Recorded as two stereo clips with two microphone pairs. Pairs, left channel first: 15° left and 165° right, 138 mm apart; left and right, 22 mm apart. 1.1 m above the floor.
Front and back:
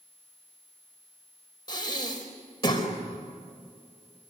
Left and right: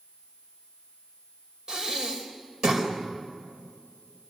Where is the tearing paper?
No tearing paper in this recording.